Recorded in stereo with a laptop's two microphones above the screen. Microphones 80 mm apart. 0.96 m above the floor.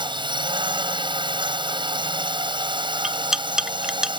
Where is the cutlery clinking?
10° right (ahead or behind).